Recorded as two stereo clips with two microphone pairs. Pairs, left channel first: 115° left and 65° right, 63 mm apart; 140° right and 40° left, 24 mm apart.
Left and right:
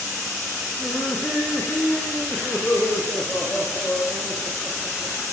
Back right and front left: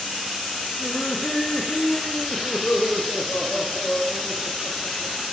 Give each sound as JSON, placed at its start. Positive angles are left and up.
{"t": 0.8, "sound": "laughter", "azimuth_deg": 180, "distance_m": 10.0}